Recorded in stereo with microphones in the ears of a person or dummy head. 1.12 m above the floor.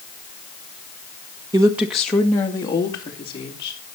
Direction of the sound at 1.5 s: 15° right (ahead or behind).